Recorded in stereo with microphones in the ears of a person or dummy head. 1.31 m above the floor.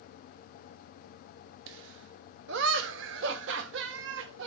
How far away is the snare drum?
I don't hear a snare drum.